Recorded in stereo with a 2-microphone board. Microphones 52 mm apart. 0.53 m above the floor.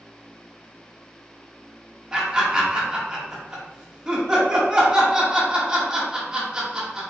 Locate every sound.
2.1 s laughter: 15° right (ahead or behind), 1.0 m